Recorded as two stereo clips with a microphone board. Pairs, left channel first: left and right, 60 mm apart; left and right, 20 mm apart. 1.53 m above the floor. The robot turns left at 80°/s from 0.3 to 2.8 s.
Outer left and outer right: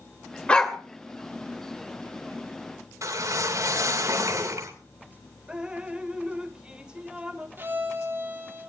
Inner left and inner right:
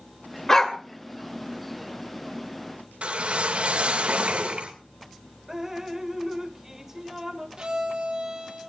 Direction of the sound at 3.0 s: 60° right (ahead or behind).